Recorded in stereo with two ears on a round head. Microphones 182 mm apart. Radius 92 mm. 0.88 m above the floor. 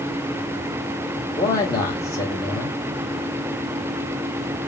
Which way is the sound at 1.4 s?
15° left (ahead or behind).